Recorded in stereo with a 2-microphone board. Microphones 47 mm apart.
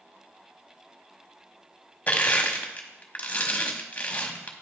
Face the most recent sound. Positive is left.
turn(degrees=30)  # may be behind; listen again after turning